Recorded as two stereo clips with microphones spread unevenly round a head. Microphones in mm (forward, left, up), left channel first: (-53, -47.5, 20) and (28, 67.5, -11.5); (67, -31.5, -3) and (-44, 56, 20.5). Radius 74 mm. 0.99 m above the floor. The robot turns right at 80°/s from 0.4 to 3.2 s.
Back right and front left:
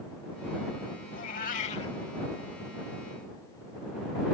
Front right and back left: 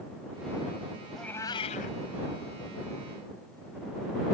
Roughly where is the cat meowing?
Behind right.